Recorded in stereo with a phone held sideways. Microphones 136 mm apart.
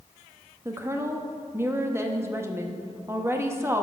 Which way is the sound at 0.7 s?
20° right (ahead or behind).